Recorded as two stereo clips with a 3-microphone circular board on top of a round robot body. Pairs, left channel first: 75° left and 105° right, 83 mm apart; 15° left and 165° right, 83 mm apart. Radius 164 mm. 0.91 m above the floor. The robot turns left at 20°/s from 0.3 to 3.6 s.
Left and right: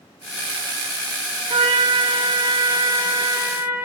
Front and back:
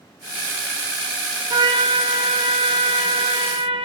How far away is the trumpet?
About 2.5 m.